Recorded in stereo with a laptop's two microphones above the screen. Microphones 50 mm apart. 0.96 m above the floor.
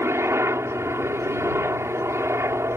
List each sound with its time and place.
0.0 s a helicopter: 65° right (ahead or behind)